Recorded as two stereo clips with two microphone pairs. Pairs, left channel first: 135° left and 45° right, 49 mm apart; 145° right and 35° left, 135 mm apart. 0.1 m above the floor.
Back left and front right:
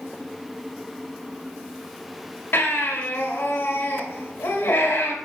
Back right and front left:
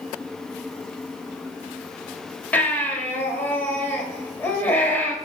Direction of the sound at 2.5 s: 140° left.